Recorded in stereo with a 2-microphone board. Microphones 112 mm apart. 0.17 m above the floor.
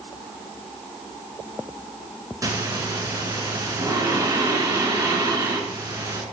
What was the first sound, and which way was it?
Breathing, 30° right (ahead or behind).